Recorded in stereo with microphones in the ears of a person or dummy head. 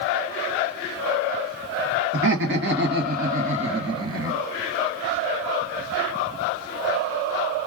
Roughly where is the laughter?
Right.